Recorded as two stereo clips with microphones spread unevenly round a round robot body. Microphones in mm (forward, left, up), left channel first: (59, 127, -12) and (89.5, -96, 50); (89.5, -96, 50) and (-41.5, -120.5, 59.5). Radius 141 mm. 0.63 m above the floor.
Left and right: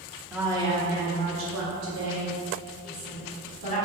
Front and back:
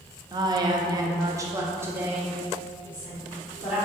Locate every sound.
0.3 s a woman speaking: 165° left, 0.6 m; by 3.8 s 85° right, 1.7 m